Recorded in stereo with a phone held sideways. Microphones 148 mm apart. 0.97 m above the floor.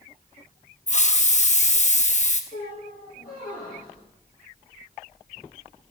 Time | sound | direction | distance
0.9 | a hiss | 50° left (ahead or behind) | 0.9 m
2.5 | a squeak | 70° left (ahead or behind) | 8.5 m